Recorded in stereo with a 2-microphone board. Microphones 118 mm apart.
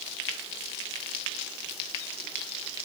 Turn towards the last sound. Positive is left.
No sound to turn to.